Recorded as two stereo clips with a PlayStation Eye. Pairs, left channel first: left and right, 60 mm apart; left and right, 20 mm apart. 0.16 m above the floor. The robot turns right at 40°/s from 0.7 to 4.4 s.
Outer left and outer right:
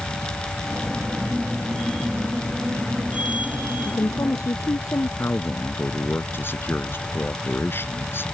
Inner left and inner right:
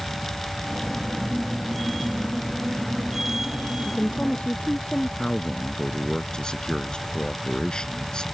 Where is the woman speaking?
60° left (ahead or behind); by 5.1 s 75° left (ahead or behind).